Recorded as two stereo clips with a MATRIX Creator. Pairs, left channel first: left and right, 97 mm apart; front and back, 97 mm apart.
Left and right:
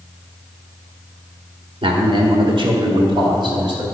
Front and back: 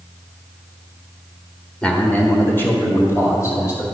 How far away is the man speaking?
About 1.5 m.